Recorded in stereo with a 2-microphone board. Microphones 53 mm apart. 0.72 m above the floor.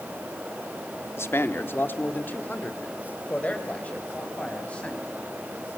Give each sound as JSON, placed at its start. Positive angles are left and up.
{"t": 1.2, "sound": "a man speaking", "side_deg": 60, "distance_m": 1.4}